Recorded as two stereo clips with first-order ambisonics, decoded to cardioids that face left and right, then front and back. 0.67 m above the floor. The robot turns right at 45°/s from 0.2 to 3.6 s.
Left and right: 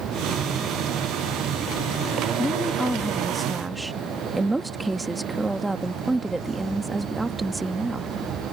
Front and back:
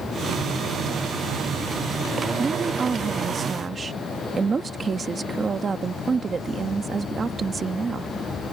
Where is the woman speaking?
150° left; by 8.1 s 155° right.